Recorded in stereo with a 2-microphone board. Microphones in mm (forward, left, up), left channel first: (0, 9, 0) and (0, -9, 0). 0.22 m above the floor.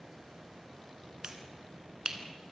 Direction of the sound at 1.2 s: 35° right (ahead or behind).